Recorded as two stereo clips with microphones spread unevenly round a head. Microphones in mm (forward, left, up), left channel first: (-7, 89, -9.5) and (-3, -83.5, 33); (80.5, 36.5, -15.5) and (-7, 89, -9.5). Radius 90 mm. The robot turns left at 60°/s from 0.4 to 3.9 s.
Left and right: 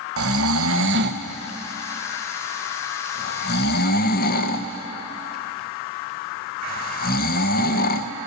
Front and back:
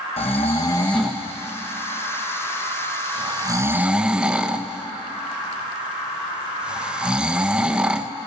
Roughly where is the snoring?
Right.